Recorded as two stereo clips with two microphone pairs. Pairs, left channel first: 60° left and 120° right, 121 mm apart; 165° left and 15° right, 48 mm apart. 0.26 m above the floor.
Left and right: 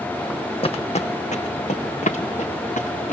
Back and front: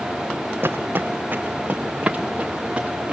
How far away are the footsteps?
About 0.8 m.